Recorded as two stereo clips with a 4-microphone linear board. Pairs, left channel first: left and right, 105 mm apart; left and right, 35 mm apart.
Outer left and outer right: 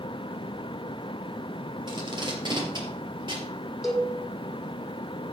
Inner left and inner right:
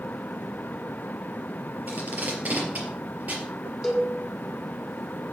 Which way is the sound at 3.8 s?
Centre (ahead or behind).